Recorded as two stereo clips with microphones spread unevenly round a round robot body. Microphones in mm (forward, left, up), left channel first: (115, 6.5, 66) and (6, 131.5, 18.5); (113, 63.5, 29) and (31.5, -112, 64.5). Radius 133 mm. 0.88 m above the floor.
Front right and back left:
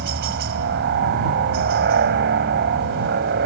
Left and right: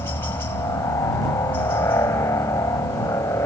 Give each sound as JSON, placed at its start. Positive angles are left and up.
{"t": 0.0, "sound": "a helicopter", "azimuth_deg": 145}